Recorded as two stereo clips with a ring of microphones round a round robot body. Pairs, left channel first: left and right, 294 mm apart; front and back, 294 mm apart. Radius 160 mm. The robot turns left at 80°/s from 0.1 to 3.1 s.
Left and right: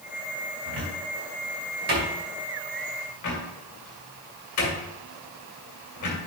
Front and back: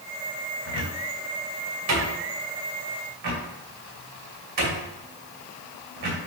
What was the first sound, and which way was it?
A cupboard door, 45° right.